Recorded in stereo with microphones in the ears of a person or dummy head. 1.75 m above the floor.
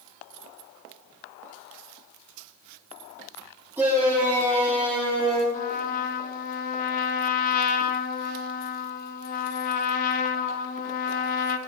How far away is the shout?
About 1.9 m.